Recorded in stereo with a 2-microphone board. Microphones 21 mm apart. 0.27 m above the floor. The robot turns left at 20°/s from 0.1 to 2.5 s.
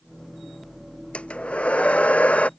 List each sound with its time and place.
1.1 s a hair dryer: 55° left (ahead or behind); by 2.5 s 80° left